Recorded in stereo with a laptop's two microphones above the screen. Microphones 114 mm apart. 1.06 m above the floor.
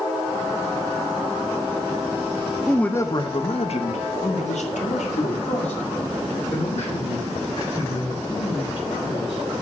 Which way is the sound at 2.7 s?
Centre (ahead or behind).